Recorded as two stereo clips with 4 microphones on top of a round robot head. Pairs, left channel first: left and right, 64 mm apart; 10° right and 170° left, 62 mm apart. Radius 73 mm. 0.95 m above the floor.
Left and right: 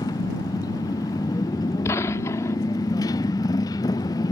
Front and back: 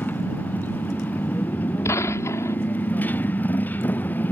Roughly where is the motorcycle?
Ahead left.